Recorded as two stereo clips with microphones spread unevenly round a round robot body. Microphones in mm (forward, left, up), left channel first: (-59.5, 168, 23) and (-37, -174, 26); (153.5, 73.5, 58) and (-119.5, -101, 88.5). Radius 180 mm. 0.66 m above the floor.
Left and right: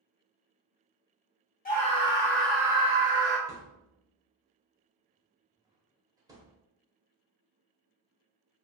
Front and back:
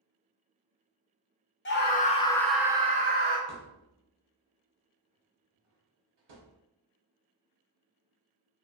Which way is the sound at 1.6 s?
45° left.